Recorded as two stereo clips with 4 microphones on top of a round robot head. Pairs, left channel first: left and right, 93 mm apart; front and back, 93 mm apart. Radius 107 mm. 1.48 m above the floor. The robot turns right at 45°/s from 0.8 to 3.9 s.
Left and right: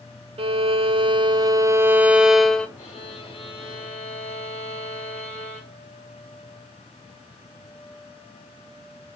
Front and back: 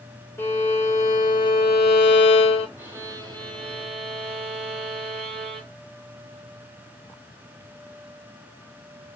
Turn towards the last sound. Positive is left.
turn(degrees=165)